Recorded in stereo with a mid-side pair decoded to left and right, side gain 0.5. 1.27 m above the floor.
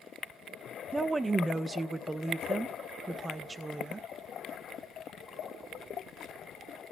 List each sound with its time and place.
0.9 s a woman speaking: 20° right, 0.7 m